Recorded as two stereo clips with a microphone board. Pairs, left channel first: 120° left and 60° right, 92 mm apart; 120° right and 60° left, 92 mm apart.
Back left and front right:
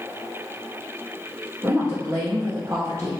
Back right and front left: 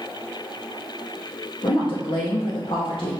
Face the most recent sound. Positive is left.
turn(degrees=-110)